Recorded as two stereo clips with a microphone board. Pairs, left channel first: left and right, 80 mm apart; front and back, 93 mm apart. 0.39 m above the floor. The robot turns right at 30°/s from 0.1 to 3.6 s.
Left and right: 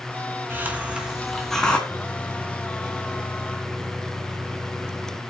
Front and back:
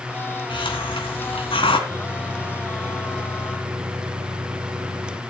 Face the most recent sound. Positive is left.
turn(degrees=-155)